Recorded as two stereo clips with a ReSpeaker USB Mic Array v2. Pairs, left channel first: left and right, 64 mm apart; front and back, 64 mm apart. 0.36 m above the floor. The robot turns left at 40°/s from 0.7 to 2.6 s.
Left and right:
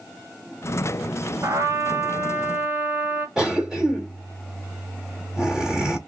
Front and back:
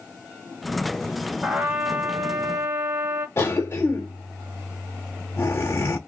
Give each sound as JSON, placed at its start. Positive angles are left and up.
{"t": 1.4, "sound": "a trumpet", "azimuth_deg": -100, "distance_m": 1.4}
{"t": 3.4, "sound": "a cough", "azimuth_deg": -15, "distance_m": 1.3}